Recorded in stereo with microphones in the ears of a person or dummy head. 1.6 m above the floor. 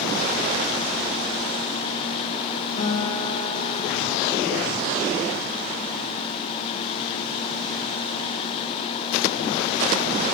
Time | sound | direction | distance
2.8 | a guitar | 40° left (ahead or behind) | 2.5 m